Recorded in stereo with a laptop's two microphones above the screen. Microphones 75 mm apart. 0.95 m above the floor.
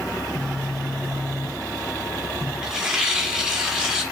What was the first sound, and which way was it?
A phone buzzing, 5° left (ahead or behind).